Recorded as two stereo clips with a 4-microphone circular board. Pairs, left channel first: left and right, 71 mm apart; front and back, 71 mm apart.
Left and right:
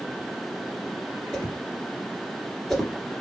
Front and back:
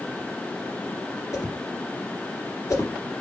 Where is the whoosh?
5° left, 2 m.